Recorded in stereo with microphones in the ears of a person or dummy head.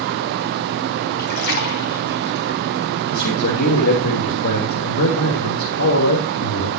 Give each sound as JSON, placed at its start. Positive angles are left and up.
{"t": 1.2, "sound": "a splash", "side_deg": 50, "distance_m": 3.5}
{"t": 3.1, "sound": "a man speaking", "side_deg": 65, "distance_m": 4.0}